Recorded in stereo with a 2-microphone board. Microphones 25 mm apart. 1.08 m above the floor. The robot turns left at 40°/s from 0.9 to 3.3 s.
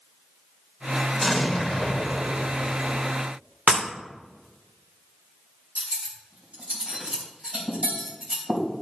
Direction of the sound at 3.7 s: 65° right (ahead or behind).